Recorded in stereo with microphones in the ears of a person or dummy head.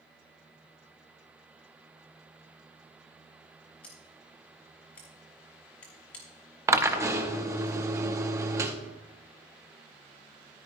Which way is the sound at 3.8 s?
10° left (ahead or behind).